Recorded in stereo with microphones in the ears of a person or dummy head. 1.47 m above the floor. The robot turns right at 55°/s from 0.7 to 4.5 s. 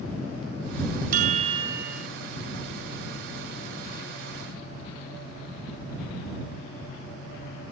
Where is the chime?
55° right; by 2.1 s straight ahead.